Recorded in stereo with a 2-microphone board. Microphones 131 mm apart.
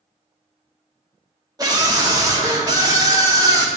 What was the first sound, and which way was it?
A scream, 30° right (ahead or behind).